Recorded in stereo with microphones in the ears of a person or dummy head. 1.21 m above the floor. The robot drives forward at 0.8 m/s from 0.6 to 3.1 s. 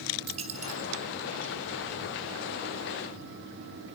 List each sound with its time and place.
0.3 s a dropped coin: 35° right (ahead or behind), 1.5 m; by 0.9 s 40° right (ahead or behind), 1.3 m